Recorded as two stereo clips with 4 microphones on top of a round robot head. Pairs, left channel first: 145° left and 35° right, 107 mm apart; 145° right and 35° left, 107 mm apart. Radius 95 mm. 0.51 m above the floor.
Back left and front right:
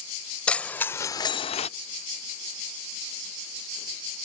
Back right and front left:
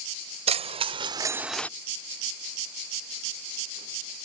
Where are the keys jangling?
60° left; by 1.7 s 145° left.